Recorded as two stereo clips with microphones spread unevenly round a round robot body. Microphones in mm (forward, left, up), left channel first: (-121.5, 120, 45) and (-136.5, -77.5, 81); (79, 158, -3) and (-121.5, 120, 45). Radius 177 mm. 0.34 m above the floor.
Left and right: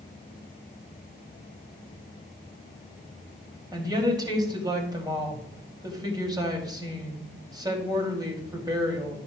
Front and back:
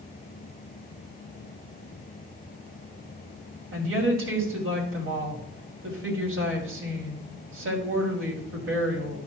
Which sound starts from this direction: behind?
A woman speaking, at 3.7 s.